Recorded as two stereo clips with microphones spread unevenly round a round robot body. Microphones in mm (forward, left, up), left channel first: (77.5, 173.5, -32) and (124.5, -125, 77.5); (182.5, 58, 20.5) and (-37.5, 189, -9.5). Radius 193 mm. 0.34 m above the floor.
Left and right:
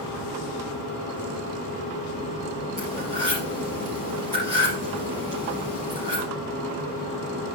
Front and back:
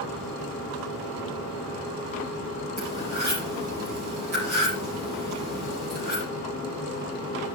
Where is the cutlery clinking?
160° right, 4.5 m.